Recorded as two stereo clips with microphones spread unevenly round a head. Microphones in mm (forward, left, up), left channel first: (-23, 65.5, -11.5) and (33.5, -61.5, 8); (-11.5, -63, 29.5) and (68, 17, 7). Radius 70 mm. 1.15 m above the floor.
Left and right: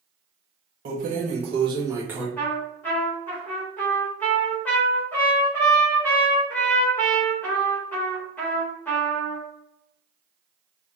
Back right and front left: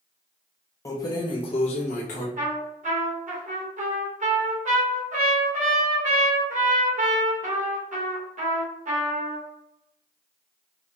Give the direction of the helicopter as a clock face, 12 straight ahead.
I don't hear a helicopter.